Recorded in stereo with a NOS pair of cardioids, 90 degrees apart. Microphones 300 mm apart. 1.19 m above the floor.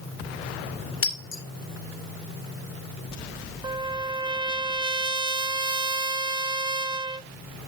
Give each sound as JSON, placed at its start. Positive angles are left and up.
{"t": 1.0, "sound": "breaking glass", "azimuth_deg": 45, "distance_m": 2.5}
{"t": 3.6, "sound": "a trumpet", "azimuth_deg": -15, "distance_m": 0.6}